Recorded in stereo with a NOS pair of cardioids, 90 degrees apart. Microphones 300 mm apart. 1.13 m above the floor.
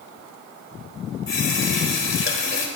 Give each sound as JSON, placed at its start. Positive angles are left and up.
{"t": 1.3, "sound": "a running tap", "azimuth_deg": 40, "distance_m": 4.0}